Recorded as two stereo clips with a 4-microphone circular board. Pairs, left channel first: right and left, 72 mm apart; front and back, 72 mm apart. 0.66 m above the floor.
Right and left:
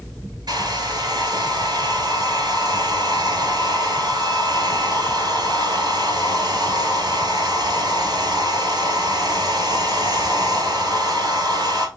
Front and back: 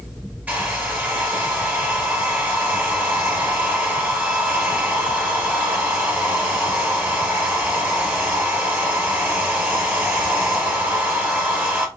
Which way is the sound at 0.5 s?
105° left.